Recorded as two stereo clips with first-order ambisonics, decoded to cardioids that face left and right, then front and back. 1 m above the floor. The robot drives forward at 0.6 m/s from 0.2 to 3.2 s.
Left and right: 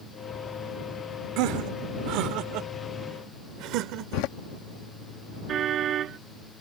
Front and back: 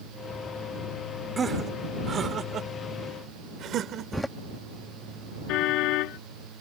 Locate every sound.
1.4 s laughter: 110° right; by 4.3 s 125° right
4.1 s a door slam: 90° left
5.5 s a car horn: 35° right